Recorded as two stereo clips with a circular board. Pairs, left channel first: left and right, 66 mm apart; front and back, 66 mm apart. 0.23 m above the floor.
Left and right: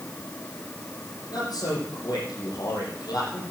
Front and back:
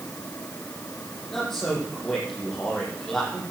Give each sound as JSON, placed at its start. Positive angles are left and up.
{"t": 1.3, "sound": "a man speaking", "azimuth_deg": 85, "distance_m": 7.5}